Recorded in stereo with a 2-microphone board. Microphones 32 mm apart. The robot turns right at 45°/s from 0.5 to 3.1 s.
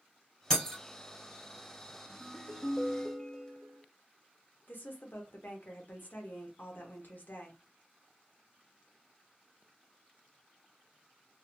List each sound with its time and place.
0.5 s breaking glass: 10° left (ahead or behind), 1.8 m; by 0.8 s 15° left (ahead or behind), 1.8 m
2.2 s a ringtone: 110° left, 0.7 m; by 3.8 s 150° left, 0.7 m
4.7 s a woman speaking: 60° left (ahead or behind), 0.8 m